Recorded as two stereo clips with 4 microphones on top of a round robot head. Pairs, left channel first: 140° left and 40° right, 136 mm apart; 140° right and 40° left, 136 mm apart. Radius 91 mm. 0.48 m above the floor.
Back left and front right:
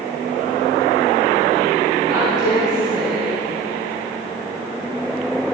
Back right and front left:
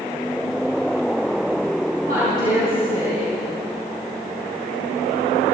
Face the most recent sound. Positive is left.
turn(degrees=20)